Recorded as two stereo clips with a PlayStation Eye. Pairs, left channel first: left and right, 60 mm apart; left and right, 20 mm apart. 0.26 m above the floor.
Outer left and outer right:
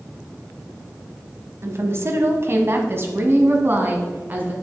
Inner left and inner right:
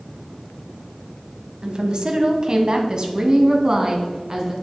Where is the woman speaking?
50° right (ahead or behind), 1.4 m; by 4.5 s 35° right (ahead or behind), 2.5 m.